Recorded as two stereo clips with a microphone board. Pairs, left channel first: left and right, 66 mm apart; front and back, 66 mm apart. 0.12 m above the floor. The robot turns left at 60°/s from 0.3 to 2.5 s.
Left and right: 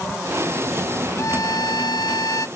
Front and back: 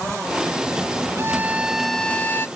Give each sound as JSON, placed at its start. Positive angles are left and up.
{"t": 1.2, "sound": "a violin", "azimuth_deg": 130}